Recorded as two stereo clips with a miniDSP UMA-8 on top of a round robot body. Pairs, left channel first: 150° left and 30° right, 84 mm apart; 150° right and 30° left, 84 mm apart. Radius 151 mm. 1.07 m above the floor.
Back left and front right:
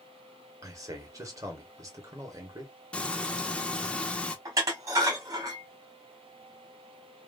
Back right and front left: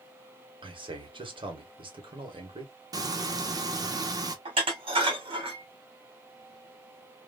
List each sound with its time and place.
0.6 s a man speaking: 20° left, 1.6 m
2.9 s frying: 75° left, 0.8 m
4.5 s dishes clattering: 20° left, 1.9 m